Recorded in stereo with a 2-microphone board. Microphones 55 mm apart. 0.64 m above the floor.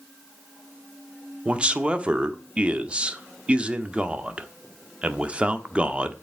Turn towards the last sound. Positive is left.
turn(degrees=-20)  # may be behind; listen again after turning